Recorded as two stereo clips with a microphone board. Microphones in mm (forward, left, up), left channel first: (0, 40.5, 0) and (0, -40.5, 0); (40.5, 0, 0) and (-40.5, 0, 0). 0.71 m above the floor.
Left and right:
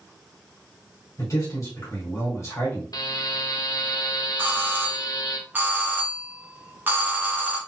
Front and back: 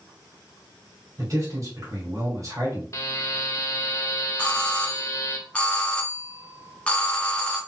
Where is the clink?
I don't hear a clink.